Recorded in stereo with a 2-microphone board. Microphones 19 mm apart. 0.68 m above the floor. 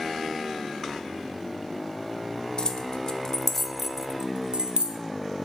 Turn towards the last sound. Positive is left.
turn(degrees=-60)  # may be behind; listen again after turning